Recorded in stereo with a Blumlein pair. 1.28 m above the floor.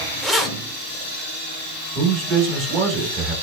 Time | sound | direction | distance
0.2 | keys jangling | 5° right | 0.7 m
1.9 | a man speaking | 30° right | 1.3 m